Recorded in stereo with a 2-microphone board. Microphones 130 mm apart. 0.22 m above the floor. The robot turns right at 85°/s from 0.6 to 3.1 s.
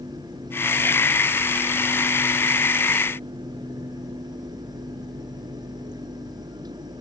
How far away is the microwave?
No microwave in this recording.